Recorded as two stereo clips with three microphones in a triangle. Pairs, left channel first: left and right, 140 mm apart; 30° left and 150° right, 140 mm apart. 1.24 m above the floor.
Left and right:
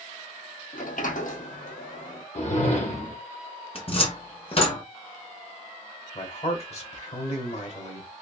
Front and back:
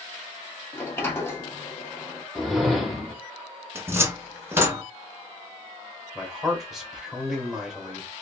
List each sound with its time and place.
0.7 s a sliding door: 100° left, 0.7 m
2.4 s a whoosh: 120° left, 0.8 m
3.8 s a cupboard door: 140° left, 0.7 m
6.2 s a man speaking: 120° left, 1.2 m